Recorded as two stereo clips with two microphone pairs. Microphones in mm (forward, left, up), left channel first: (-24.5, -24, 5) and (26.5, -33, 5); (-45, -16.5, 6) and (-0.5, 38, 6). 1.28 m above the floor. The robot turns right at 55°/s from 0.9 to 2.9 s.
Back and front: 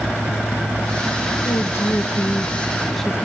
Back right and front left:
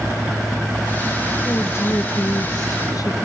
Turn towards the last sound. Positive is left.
turn(degrees=-110)